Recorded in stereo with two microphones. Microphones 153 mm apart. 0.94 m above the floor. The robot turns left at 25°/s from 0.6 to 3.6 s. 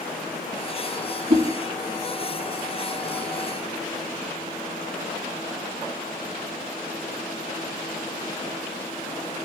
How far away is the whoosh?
About 2.5 m.